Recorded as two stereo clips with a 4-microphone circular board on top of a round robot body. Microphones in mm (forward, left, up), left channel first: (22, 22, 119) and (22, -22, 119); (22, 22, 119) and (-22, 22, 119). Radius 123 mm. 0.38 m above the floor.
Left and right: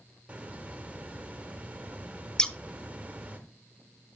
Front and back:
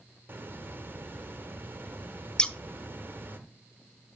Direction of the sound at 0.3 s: 150° right.